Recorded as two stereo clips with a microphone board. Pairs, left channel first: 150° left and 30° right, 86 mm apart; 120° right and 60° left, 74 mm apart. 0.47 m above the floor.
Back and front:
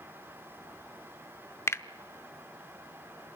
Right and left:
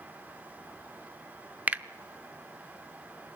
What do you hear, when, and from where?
1.7 s a finger snap: 115° left, 0.6 m